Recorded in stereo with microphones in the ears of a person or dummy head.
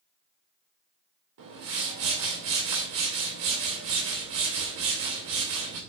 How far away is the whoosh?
About 3 m.